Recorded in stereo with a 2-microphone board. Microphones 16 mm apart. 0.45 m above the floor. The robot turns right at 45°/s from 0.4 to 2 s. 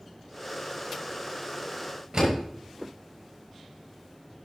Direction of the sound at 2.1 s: 35° right (ahead or behind).